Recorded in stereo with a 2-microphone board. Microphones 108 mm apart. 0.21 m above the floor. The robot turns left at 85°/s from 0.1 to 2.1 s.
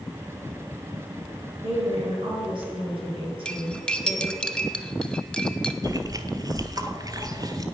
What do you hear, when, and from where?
1.6 s a woman speaking: 80° right, 4 m; by 4.4 s 120° right, 4 m
3.5 s cutlery clinking: 10° left (ahead or behind), 0.7 m
5.8 s chewing: 35° right (ahead or behind), 0.8 m